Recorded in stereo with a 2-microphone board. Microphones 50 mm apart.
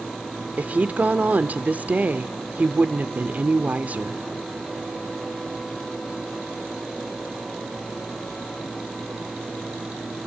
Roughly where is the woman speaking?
Right.